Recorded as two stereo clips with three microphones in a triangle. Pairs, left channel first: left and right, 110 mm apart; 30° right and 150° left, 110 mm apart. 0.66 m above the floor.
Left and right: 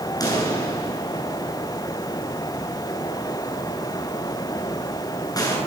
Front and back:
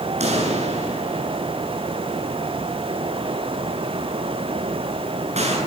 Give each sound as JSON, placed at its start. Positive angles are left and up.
{"t": 0.2, "sound": "a pop", "azimuth_deg": 145, "distance_m": 8.0}